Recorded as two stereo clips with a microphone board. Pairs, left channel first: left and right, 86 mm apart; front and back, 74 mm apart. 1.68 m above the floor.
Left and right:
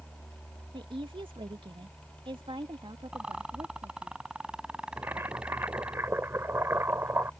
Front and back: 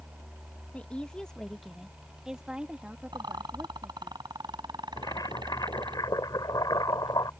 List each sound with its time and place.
0.7 s a woman speaking: 70° right; by 4.1 s 115° right
3.1 s a rattle: 170° right
5.0 s boiling: 30° right